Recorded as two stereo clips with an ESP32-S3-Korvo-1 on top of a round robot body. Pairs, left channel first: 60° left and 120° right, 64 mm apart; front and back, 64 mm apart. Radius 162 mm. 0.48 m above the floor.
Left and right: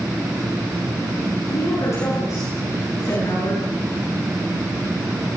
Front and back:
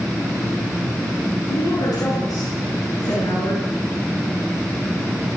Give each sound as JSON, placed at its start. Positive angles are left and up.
{"t": 1.5, "sound": "a woman speaking", "azimuth_deg": 20, "distance_m": 9.5}